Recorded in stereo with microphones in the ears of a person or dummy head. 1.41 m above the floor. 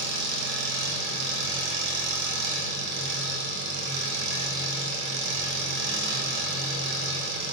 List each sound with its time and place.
0.0 s an engine running: 65° right (ahead or behind), 0.9 m